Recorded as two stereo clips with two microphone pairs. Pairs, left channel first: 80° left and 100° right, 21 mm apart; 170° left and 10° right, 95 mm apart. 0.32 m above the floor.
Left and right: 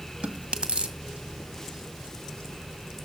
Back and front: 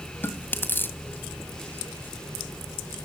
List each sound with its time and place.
0.2 s chewing: 125° right, 1.9 m